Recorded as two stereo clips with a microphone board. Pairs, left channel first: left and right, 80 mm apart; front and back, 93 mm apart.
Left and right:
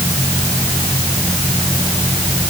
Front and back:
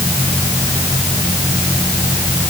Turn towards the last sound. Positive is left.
No sound to turn to.